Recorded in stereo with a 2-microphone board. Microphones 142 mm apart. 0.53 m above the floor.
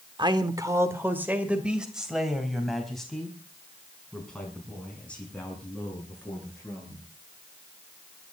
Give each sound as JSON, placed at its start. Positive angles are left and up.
{"t": 0.2, "sound": "a man speaking", "side_deg": -35, "distance_m": 1.6}